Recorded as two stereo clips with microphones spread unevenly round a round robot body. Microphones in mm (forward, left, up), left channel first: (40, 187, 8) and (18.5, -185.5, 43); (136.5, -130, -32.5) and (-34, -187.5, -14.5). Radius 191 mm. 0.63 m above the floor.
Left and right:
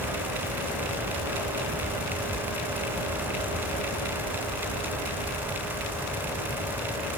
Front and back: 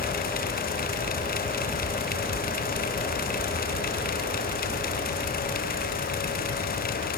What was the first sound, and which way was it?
Only background noise.